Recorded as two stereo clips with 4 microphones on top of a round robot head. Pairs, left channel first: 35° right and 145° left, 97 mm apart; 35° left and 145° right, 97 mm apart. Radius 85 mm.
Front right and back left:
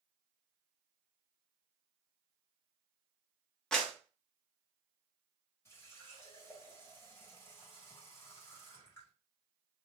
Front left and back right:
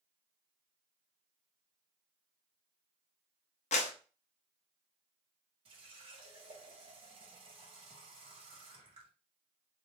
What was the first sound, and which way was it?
A clap, 45° left.